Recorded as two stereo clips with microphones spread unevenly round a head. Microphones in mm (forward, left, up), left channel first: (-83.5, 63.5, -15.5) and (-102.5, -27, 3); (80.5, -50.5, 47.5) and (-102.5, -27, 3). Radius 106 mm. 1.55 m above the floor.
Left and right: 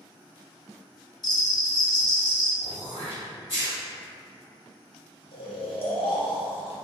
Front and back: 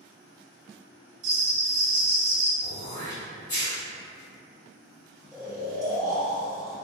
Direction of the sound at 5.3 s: 90° left.